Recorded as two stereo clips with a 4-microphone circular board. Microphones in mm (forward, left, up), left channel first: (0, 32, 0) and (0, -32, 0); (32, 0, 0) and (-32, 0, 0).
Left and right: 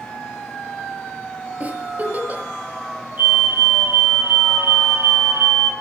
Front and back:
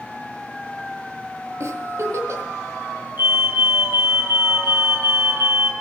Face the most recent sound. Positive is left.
turn(degrees=-135)